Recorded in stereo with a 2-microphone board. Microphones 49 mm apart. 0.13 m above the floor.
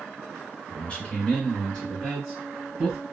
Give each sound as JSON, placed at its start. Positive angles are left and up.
{"t": 0.7, "sound": "a man speaking", "side_deg": 30, "distance_m": 2.0}